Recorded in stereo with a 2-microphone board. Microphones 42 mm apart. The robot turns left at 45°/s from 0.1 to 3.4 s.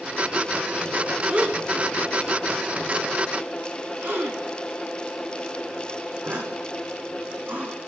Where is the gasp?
35° right (ahead or behind), 3.5 m; by 7.8 s 50° right (ahead or behind), 3.5 m.